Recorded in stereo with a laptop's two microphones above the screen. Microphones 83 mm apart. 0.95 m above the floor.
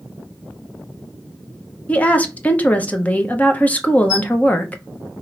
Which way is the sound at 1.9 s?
20° left (ahead or behind).